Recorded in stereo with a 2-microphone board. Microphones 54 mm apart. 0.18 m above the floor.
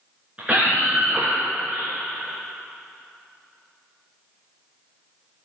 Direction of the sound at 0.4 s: 20° right (ahead or behind).